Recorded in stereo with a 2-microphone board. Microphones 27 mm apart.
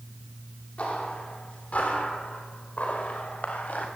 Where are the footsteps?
50° left (ahead or behind), 9.5 m; by 3.9 s 70° left (ahead or behind), 6.5 m.